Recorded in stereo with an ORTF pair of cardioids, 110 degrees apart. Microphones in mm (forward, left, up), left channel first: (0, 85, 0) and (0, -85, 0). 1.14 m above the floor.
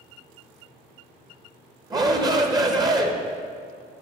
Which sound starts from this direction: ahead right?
A shout, at 1.9 s.